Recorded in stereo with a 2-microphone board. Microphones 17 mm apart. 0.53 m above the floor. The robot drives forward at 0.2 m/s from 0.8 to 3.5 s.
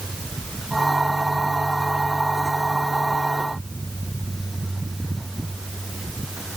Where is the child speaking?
I don't hear a child speaking.